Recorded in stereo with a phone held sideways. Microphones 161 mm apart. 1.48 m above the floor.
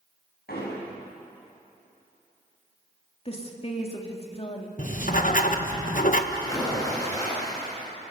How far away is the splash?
About 10 m.